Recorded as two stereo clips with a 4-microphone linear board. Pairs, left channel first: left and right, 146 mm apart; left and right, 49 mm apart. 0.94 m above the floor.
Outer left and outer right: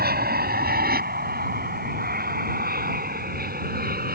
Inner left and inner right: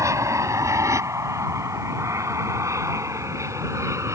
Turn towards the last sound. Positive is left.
turn(degrees=-70)  # may be behind; listen again after turning